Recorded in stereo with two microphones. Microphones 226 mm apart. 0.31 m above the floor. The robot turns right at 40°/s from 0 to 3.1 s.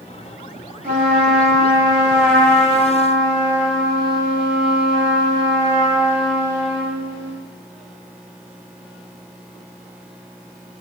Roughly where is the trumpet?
Ahead right.